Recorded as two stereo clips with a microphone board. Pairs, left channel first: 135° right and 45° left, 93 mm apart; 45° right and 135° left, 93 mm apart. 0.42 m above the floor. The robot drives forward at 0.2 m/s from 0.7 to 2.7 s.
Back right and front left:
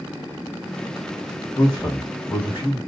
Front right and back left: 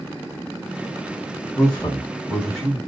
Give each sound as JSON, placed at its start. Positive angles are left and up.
{"t": 1.6, "sound": "a man speaking", "azimuth_deg": -120, "distance_m": 1.5}